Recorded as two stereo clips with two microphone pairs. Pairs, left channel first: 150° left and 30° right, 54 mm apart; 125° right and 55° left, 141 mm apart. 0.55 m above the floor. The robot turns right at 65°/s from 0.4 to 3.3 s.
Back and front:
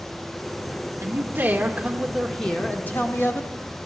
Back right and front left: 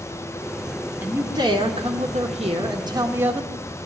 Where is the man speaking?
15° right, 1.5 m; by 3.5 s 130° left, 1.5 m.